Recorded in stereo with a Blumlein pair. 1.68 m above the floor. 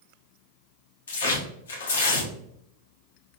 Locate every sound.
1.1 s tearing paper: 65° left, 0.7 m